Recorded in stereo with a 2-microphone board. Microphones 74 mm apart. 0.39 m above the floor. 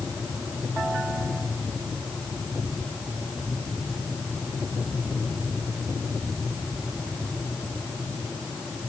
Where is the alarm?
No alarm in this recording.